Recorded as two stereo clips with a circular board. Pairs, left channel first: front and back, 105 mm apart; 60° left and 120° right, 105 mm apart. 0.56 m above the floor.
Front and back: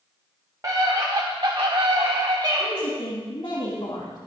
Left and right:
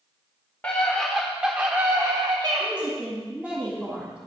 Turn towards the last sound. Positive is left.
turn(degrees=-45)